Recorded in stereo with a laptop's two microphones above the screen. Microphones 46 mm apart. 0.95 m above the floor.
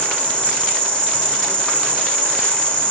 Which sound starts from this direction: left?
An insect, at 0.0 s.